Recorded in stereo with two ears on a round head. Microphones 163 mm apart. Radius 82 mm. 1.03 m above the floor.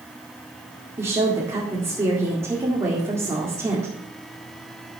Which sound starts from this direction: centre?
A woman speaking, at 1.0 s.